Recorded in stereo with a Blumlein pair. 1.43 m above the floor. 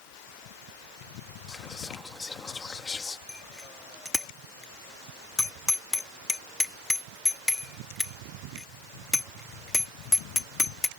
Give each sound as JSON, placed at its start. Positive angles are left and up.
{"t": 1.5, "sound": "whispering", "azimuth_deg": 15}
{"t": 3.3, "sound": "a bicycle bell", "azimuth_deg": 10}